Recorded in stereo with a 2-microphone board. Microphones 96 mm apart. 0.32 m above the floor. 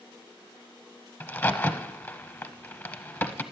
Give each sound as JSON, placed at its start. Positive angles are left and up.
{"t": 1.2, "sound": "a crack", "side_deg": 25, "distance_m": 0.6}